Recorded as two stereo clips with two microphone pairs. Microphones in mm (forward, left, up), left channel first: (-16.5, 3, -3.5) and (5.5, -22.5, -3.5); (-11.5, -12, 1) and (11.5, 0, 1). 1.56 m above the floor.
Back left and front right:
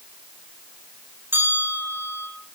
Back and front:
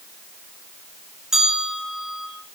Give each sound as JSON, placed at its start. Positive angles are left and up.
{"t": 1.3, "sound": "a bell", "azimuth_deg": -45, "distance_m": 5.0}